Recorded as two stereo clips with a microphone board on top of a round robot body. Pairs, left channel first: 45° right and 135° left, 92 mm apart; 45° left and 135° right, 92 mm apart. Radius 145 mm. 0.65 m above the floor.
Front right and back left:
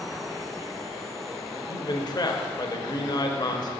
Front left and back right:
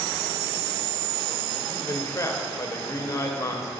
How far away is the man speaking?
About 1.1 m.